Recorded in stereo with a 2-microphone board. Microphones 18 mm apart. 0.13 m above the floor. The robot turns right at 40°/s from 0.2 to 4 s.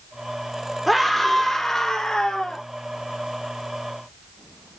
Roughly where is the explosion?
I don't hear an explosion.